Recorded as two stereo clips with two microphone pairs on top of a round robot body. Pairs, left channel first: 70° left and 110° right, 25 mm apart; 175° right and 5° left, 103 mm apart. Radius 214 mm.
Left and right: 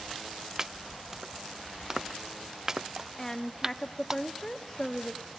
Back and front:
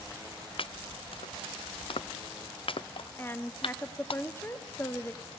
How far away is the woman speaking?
About 1.0 m.